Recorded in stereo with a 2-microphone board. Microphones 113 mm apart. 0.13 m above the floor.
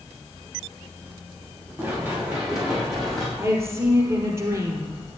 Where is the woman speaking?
25° right (ahead or behind), 3 m.